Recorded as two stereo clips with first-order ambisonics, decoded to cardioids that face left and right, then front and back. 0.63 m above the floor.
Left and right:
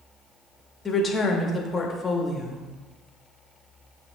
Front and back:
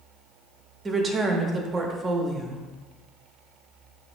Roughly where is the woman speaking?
Behind left.